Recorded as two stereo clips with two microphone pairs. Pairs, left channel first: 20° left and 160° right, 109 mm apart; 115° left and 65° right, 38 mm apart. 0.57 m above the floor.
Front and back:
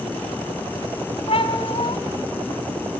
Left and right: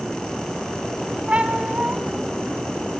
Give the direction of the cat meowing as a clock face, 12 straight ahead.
12 o'clock.